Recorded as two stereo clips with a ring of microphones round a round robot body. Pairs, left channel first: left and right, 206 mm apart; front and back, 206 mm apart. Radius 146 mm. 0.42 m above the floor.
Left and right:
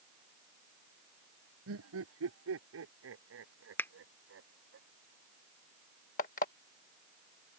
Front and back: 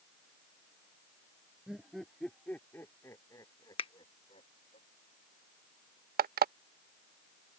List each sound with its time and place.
1.7 s laughter: 90° right; by 4.8 s 70° right
3.8 s a finger snap: 20° left
6.2 s an alarm clock: 140° left